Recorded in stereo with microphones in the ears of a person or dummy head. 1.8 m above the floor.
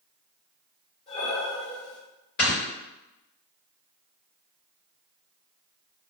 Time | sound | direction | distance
1.1 | breathing | 30° left (ahead or behind) | 1.0 m
2.4 | snoring | 50° left (ahead or behind) | 2.0 m